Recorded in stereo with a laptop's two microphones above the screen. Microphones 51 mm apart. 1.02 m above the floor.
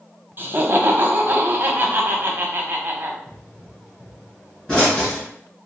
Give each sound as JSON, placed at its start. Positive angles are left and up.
{"t": 0.4, "sound": "laughter", "side_deg": -40, "distance_m": 0.9}
{"t": 3.3, "sound": "a pop", "side_deg": 20, "distance_m": 2.0}